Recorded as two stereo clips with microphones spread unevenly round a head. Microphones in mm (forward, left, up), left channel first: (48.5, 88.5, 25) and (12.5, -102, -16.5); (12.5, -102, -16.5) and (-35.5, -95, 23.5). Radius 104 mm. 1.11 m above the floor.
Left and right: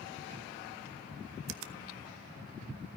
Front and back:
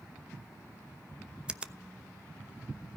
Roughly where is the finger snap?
Right.